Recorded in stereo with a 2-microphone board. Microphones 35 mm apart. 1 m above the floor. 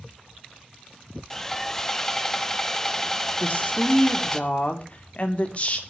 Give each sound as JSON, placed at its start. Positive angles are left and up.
{"t": 1.3, "sound": "sawing", "side_deg": 15, "distance_m": 1.0}
{"t": 3.4, "sound": "a woman speaking", "side_deg": 40, "distance_m": 2.5}